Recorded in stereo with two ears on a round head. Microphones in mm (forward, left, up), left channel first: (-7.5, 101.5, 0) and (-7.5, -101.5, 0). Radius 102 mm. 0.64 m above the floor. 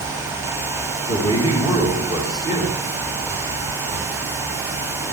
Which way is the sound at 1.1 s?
20° right (ahead or behind).